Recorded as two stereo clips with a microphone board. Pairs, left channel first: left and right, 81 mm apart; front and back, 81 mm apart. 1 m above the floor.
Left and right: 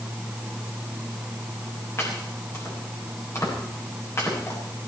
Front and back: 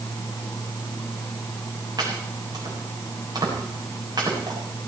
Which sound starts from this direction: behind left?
Chopping, at 2.0 s.